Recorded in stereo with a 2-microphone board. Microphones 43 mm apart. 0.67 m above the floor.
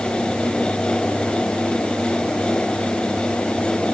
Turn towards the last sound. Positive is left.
No sound to turn to.